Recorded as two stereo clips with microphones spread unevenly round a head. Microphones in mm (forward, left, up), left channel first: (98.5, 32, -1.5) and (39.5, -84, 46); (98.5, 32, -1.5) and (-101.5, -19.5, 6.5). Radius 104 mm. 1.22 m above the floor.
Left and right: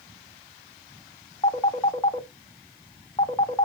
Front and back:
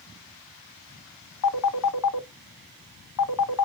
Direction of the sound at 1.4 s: 10° left.